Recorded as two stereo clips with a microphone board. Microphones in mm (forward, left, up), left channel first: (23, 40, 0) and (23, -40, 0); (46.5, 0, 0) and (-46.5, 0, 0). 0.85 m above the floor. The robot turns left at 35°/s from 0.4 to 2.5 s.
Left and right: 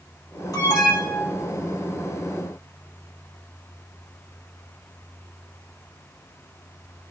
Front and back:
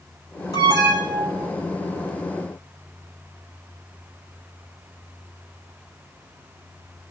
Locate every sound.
0.5 s an alarm: 45° left, 5 m; by 1.5 s 10° left, 5 m